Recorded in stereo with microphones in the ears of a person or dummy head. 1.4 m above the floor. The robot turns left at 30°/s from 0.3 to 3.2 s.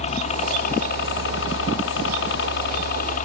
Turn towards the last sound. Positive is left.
turn(degrees=45)